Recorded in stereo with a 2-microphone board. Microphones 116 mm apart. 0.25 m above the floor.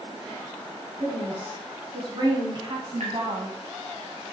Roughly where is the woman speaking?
Right.